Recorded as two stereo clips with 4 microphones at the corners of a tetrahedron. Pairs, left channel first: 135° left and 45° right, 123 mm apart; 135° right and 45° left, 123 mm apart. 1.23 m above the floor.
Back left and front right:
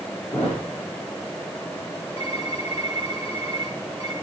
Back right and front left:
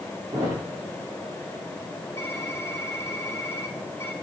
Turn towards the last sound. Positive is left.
turn(degrees=160)